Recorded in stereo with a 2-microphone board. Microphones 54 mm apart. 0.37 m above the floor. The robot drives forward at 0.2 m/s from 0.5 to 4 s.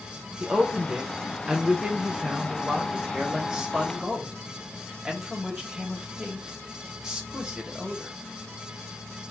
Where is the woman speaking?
15° right (ahead or behind), 0.8 m; by 8.2 s 10° right (ahead or behind), 1.2 m.